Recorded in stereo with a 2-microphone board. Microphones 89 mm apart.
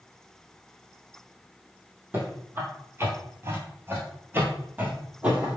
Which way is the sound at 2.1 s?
25° right (ahead or behind).